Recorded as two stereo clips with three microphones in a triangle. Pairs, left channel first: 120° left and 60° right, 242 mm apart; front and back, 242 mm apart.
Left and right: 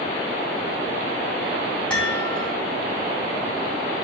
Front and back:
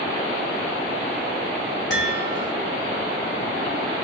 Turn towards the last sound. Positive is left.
turn(degrees=35)